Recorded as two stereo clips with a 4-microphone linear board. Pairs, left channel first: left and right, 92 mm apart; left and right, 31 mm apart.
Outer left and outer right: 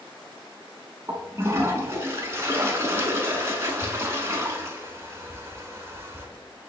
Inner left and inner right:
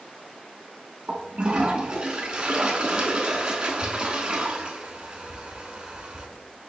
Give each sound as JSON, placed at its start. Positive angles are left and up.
{"t": 1.1, "sound": "a toilet flushing", "side_deg": -30, "distance_m": 0.8}